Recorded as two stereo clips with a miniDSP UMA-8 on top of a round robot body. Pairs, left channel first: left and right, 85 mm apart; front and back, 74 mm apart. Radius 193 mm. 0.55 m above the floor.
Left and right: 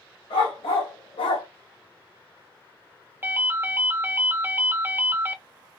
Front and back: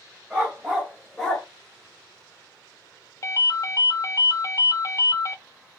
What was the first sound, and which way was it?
A dog barking, 100° left.